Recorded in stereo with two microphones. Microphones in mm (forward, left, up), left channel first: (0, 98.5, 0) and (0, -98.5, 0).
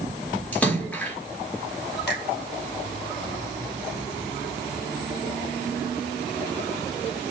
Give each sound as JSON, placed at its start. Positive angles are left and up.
{"t": 0.5, "sound": "a splash", "side_deg": 5, "distance_m": 3.5}
{"t": 2.1, "sound": "a finger snap", "side_deg": 60, "distance_m": 4.5}